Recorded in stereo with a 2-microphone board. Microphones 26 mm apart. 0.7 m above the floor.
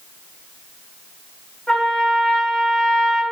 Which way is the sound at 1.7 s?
30° left (ahead or behind).